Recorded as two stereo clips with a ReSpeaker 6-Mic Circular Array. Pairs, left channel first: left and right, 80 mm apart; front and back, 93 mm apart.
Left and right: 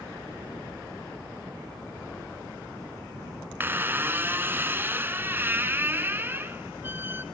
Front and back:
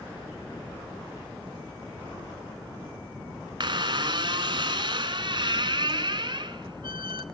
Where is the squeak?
155° right, 1.1 m.